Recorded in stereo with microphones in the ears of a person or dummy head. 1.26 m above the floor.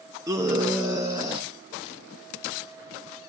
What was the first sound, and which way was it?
A scream, 15° right (ahead or behind).